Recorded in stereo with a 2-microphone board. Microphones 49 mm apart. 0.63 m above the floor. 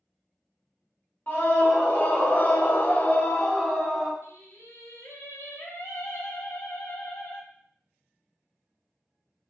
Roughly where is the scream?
Left.